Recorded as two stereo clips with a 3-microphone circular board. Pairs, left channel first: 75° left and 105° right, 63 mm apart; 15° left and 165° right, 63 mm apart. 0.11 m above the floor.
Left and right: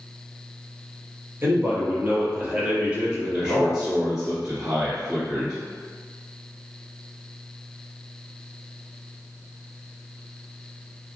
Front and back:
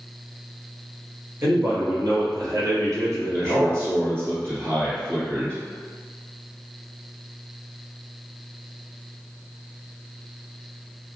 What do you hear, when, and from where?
1.4 s a man speaking: 145° right, 1.6 m; by 3.9 s 170° left, 2.5 m
3.3 s a man speaking: straight behind, 1.9 m